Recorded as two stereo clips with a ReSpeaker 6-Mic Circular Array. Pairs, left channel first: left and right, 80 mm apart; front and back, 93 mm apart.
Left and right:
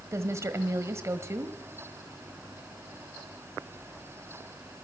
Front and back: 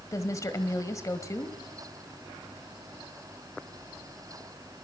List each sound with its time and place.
0.1 s a woman speaking: 45° right, 1.5 m